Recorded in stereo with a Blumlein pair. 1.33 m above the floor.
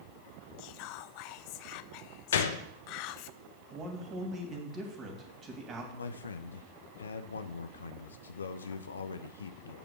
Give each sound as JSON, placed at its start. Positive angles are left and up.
{"t": 0.6, "sound": "whispering", "azimuth_deg": 45, "distance_m": 0.5}
{"t": 2.3, "sound": "a gunshot", "azimuth_deg": 60, "distance_m": 0.9}
{"t": 3.7, "sound": "a man speaking", "azimuth_deg": -25, "distance_m": 3.0}
{"t": 5.9, "sound": "a man speaking", "azimuth_deg": 70, "distance_m": 0.5}